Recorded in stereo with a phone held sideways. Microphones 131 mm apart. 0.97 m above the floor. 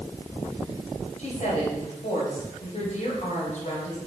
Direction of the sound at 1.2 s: 65° left (ahead or behind).